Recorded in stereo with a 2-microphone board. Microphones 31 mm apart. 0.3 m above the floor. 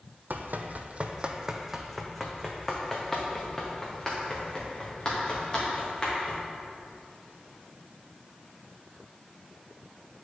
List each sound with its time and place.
0.3 s running footsteps: 70° right (ahead or behind), 0.8 m; by 6.4 s 30° left (ahead or behind), 4 m